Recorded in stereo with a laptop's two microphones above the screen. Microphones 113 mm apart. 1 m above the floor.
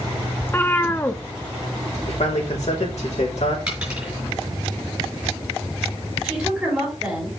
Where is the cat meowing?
20° left (ahead or behind), 0.5 m.